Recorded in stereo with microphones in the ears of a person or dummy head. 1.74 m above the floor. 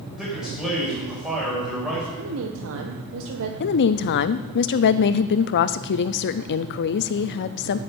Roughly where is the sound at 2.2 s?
Right.